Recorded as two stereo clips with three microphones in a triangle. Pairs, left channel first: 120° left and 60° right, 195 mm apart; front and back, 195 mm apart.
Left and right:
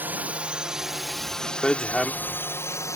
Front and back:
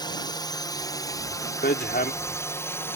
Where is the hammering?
35° left.